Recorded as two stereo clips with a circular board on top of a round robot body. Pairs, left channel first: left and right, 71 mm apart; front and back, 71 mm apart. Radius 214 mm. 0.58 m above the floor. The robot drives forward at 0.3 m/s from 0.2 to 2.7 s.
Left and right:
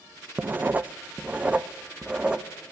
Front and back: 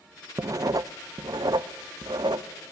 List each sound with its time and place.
0.4 s writing: 150° right, 0.6 m; by 2.5 s 165° right, 1.1 m